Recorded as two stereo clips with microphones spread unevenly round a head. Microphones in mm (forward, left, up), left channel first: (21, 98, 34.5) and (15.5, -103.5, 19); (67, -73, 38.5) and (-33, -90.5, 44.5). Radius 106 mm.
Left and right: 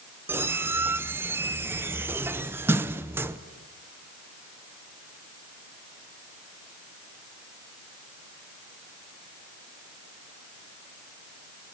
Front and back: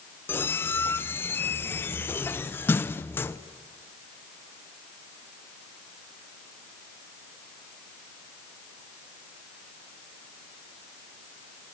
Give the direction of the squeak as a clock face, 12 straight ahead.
1 o'clock.